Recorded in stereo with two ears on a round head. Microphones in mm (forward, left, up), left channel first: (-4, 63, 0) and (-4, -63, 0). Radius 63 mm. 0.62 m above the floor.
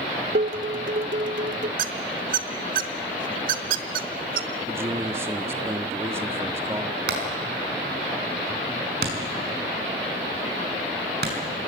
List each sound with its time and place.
0.3 s dishes clattering: 65° right (ahead or behind), 1.1 m
1.8 s a squeak: 65° right (ahead or behind), 1.1 m
4.7 s a man speaking: 20° right (ahead or behind), 1.0 m
7.1 s hammering: 85° right, 5.5 m